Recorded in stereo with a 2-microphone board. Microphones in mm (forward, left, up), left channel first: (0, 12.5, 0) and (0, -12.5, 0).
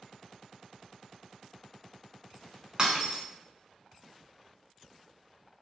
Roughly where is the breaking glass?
Right.